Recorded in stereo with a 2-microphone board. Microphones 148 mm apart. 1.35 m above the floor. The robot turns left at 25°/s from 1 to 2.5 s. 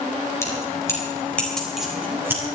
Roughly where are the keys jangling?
Centre.